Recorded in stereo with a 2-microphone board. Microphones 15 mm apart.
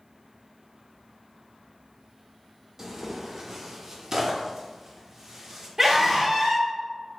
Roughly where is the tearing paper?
Right.